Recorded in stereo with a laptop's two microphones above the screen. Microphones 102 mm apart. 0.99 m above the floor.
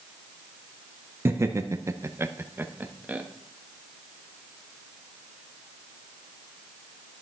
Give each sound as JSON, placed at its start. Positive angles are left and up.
{"t": 1.2, "sound": "laughter", "side_deg": -25, "distance_m": 0.7}